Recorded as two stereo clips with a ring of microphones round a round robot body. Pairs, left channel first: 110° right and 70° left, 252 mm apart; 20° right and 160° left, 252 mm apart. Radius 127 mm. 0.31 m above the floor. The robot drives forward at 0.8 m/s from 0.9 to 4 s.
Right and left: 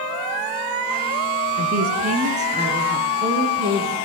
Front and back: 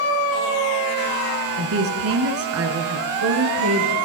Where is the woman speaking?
120° left, 4 m; by 3.9 s 140° left, 5.5 m.